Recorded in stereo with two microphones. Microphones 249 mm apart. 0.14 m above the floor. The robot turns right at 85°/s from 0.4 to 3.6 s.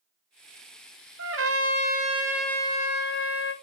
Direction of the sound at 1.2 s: 105° right.